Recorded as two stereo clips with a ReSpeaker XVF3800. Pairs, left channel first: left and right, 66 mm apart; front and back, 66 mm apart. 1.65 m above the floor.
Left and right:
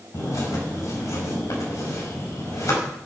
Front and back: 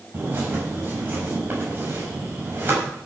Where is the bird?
120° left, 5 m.